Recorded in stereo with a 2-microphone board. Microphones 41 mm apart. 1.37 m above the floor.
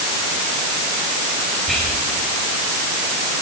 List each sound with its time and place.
1.7 s whispering: 5° left (ahead or behind), 8.5 m